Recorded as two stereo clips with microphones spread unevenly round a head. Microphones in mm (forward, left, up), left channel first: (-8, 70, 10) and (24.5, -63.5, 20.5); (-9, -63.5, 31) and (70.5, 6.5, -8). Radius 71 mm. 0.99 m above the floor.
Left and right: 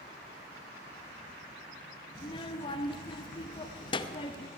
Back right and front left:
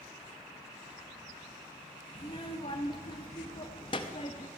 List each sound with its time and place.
2.1 s a child speaking: 160° left, 0.6 m